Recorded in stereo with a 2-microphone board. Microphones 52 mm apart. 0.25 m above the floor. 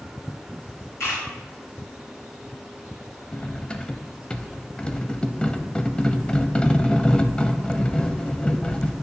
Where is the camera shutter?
55° left (ahead or behind), 4 m.